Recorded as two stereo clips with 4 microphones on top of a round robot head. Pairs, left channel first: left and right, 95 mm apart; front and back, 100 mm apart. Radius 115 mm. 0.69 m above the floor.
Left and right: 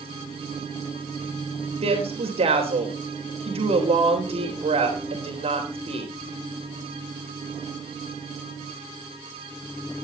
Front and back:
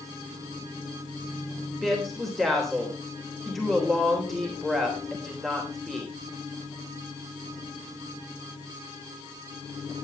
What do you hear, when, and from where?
1.8 s a woman speaking: 85° right, 3.5 m